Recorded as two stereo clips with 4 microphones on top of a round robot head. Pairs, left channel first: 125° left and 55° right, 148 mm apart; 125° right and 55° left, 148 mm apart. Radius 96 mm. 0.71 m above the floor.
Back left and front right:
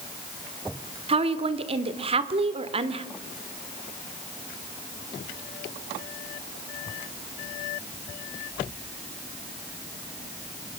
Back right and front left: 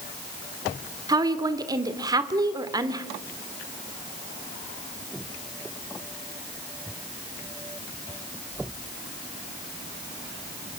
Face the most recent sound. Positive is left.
turn(degrees=-10)